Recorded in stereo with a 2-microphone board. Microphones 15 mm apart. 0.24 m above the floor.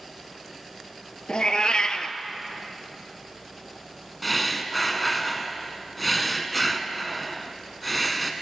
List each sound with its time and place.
1.3 s a cat meowing: 80° left, 0.5 m
4.2 s breathing: centre (ahead or behind), 0.6 m